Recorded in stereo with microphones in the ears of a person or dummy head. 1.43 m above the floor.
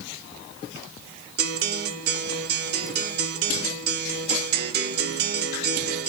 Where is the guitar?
55° right (ahead or behind), 0.9 m.